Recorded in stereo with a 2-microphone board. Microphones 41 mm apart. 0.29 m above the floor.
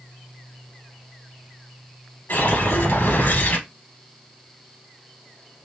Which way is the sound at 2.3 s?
60° left (ahead or behind).